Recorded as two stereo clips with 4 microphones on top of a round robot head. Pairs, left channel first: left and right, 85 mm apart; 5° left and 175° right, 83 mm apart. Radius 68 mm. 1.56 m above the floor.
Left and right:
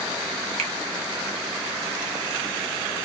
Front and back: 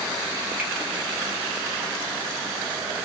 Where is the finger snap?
95° right, 0.7 m.